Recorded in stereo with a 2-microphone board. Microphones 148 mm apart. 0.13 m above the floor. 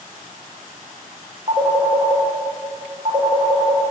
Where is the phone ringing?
45° right (ahead or behind), 5.5 m.